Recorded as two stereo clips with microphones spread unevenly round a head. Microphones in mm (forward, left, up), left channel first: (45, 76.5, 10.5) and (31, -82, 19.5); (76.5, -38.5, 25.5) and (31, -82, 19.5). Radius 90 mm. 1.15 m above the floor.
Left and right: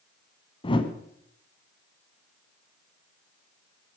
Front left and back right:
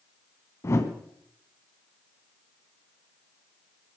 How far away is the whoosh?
About 1.6 m.